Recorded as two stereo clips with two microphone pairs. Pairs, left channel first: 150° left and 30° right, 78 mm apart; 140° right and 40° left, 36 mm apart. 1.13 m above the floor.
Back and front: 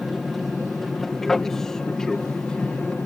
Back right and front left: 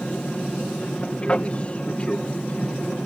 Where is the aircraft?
120° right; by 3.1 s 140° right.